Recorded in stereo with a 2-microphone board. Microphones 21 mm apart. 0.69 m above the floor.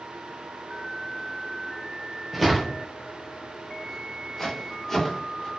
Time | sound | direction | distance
2.3 | footsteps | centre (ahead or behind) | 0.9 m